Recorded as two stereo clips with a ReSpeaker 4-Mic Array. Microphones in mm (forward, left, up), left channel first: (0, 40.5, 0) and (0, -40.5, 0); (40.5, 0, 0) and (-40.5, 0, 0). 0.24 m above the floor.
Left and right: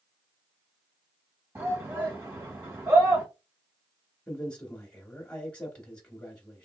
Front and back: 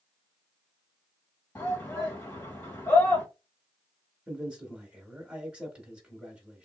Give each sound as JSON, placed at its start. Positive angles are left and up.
{"t": 1.6, "sound": "a shout", "azimuth_deg": -55, "distance_m": 1.7}
{"t": 4.3, "sound": "a man speaking", "azimuth_deg": 140, "distance_m": 1.0}